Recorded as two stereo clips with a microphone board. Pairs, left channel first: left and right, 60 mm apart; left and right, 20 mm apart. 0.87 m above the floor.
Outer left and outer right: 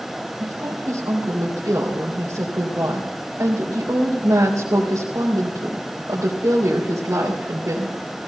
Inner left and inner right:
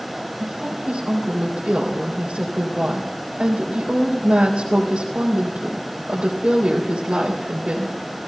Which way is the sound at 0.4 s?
70° right (ahead or behind).